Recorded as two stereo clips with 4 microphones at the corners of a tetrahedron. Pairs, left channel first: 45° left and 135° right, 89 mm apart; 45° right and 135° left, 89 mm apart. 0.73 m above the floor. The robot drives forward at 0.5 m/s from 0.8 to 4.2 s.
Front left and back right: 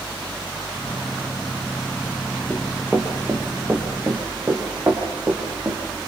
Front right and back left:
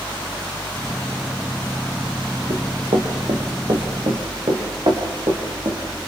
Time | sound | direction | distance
2.5 | running footsteps | 145° left | 4.5 m